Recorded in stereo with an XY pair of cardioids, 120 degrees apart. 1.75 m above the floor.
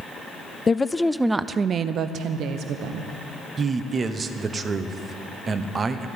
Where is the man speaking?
30° right, 1.0 m.